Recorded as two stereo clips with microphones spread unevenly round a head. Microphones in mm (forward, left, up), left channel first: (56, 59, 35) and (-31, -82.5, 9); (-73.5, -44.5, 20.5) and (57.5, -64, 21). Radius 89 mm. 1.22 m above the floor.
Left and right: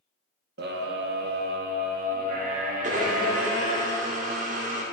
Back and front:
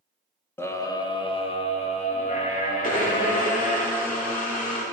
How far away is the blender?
About 2 m.